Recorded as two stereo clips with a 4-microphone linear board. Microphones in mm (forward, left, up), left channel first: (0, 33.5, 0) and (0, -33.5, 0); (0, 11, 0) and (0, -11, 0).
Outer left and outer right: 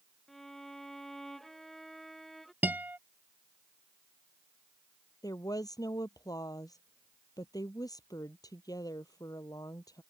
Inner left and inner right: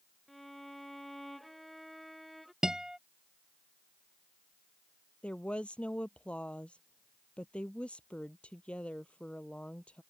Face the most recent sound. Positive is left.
turn(degrees=70)  # may be behind; listen again after turning